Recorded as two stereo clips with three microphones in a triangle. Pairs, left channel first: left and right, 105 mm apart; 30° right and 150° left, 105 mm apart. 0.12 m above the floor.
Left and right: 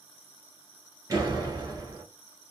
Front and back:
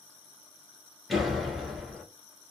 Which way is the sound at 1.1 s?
120° right.